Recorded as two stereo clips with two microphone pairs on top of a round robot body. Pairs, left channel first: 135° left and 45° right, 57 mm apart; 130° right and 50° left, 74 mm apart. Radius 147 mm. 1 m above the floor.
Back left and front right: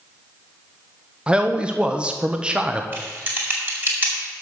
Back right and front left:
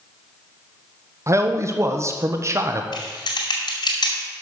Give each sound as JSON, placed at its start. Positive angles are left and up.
{"t": 1.3, "sound": "a man speaking", "azimuth_deg": 5, "distance_m": 1.0}
{"t": 2.9, "sound": "typing on a keyboard", "azimuth_deg": -105, "distance_m": 2.0}